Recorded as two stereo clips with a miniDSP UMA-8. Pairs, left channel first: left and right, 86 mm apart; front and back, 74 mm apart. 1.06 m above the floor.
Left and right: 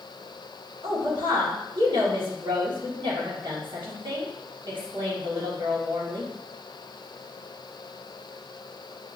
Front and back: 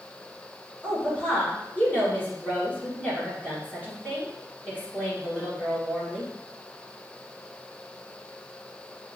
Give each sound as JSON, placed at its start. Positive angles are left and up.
{"t": 0.8, "sound": "a woman speaking", "azimuth_deg": -65, "distance_m": 1.8}